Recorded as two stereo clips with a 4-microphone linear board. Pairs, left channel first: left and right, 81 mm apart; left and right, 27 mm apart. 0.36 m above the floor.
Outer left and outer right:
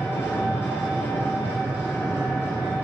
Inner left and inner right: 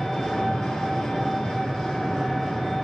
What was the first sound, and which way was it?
An engine running, 30° left (ahead or behind).